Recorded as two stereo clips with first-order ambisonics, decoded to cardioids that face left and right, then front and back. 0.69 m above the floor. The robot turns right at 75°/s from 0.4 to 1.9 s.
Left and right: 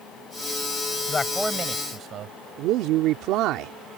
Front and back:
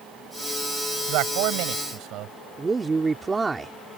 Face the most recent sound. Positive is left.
turn(degrees=-105)